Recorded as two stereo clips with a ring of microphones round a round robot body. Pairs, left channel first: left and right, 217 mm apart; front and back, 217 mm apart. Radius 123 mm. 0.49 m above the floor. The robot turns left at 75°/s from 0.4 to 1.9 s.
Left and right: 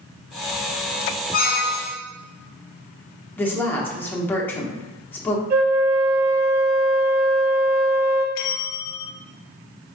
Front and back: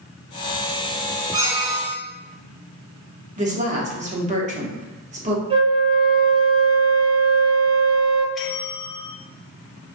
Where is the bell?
90° left, 0.7 m.